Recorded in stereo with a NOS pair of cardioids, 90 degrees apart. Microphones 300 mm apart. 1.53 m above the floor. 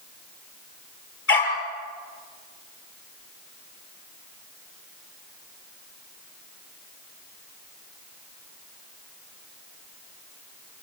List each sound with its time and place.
1.3 s a dog barking: 40° left, 8 m